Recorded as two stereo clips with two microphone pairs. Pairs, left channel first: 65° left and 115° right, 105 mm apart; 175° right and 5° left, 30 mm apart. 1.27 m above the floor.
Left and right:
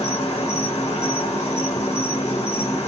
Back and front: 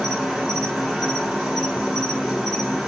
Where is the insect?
75° left, 1.7 m.